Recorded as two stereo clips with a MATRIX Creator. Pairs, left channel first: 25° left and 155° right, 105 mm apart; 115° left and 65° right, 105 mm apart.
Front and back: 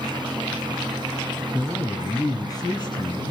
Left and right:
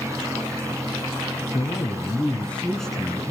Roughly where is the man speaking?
Left.